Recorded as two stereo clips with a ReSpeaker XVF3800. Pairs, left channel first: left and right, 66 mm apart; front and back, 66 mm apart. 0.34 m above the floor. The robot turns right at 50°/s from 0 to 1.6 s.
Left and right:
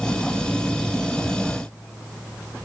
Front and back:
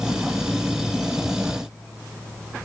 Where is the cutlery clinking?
No cutlery clinking in this recording.